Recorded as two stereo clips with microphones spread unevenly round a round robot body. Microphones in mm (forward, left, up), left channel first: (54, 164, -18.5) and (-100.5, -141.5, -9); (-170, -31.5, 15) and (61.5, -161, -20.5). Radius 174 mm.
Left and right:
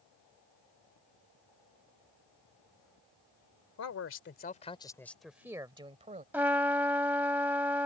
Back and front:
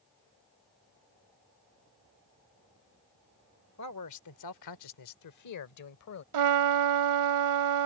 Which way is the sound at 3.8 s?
105° left.